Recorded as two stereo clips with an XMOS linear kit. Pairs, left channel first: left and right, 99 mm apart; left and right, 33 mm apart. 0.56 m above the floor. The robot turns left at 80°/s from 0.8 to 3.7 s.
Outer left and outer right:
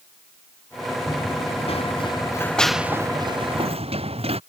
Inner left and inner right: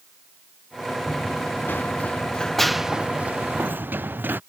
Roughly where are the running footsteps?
Left.